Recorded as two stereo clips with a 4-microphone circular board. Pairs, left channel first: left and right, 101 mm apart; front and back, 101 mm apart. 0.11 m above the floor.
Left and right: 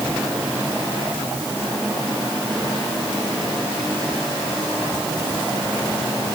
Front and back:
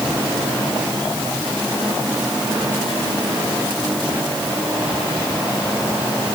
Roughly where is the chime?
No chime in this recording.